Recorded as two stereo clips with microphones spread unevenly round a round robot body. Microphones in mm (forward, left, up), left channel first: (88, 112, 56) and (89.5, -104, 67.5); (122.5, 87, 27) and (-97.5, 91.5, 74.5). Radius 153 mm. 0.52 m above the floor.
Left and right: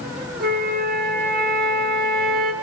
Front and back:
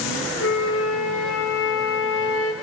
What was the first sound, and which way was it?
A flute, 45° right.